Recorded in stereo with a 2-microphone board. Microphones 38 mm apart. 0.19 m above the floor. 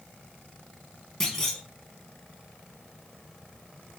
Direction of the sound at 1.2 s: 15° left (ahead or behind).